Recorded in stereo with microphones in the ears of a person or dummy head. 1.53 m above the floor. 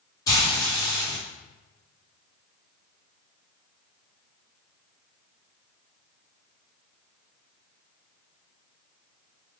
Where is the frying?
20° left (ahead or behind), 1.4 m.